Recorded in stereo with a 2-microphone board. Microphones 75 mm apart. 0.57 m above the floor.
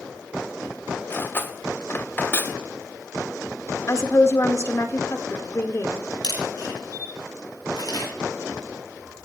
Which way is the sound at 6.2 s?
70° left (ahead or behind).